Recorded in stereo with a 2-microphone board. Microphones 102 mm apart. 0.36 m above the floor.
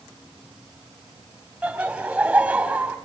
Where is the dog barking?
No dog barking in this recording.